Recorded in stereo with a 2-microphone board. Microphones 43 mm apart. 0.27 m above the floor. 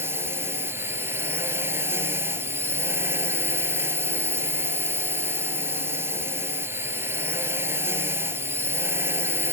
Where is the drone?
75° right (ahead or behind).